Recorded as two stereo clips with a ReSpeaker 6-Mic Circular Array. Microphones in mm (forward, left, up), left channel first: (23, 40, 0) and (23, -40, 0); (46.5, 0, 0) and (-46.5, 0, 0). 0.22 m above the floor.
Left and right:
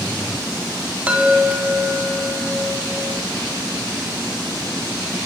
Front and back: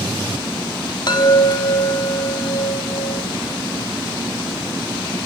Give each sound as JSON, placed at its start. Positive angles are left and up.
{"t": 1.1, "sound": "a chime", "azimuth_deg": -20, "distance_m": 0.8}